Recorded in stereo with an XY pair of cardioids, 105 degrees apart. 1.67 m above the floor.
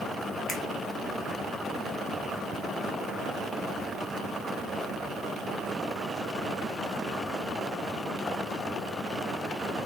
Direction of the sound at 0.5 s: 70° left.